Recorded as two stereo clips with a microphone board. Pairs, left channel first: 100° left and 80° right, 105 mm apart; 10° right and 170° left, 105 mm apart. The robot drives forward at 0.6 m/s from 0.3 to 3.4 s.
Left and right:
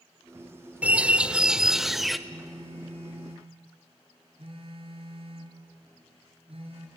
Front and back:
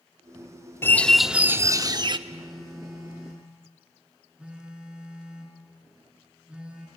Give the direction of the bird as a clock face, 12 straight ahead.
1 o'clock.